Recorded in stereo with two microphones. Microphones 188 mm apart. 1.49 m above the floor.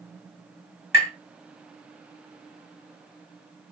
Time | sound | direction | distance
0.9 | tapping | 60° left (ahead or behind) | 2.5 m